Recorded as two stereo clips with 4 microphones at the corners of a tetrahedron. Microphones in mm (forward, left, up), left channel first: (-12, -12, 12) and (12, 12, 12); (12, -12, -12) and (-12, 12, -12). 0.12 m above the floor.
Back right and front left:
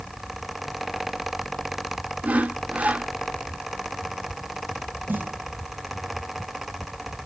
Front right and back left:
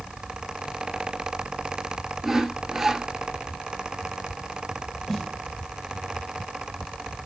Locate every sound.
2.2 s sawing: 55° left, 0.8 m
5.1 s a snare drum: 30° left, 1.2 m